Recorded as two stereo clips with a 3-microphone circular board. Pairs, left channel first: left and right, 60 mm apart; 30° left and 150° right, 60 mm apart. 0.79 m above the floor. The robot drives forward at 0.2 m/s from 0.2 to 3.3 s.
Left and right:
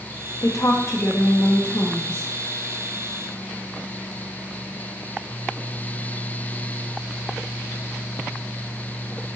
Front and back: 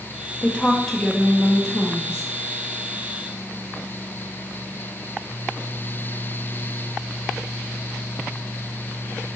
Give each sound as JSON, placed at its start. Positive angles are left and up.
{"t": 0.4, "sound": "a woman speaking", "azimuth_deg": 95, "distance_m": 0.6}